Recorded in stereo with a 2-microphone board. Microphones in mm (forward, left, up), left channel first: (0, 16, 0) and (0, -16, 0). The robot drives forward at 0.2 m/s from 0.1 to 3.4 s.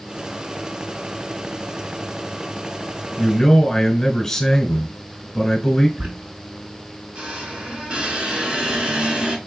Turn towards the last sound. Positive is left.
turn(degrees=-35)  # may be behind; listen again after turning